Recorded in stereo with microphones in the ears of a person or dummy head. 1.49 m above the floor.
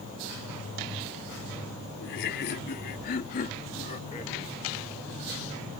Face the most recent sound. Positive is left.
turn(degrees=35)  # may be behind; listen again after turning